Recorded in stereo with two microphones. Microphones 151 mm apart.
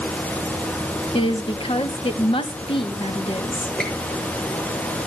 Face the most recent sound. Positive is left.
turn(degrees=5)  # may be behind; listen again after turning